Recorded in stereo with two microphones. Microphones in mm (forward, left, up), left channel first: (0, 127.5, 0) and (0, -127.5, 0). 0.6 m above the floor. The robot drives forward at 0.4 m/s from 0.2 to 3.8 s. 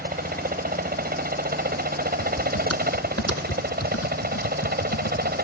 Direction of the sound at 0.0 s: 35° right (ahead or behind).